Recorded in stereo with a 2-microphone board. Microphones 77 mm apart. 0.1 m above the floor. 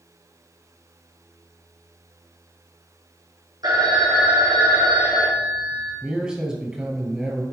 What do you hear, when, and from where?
3.6 s a phone ringing: 55° right (ahead or behind), 2.5 m
6.0 s a man speaking: 10° right (ahead or behind), 1.6 m